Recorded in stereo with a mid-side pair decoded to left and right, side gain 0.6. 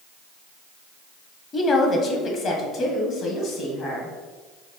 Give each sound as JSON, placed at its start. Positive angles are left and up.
{"t": 1.5, "sound": "a woman speaking", "azimuth_deg": 30, "distance_m": 0.9}